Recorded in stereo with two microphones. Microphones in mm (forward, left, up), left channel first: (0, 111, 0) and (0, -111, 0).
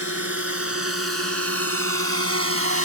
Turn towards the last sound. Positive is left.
turn(degrees=-75)  # may be behind; listen again after turning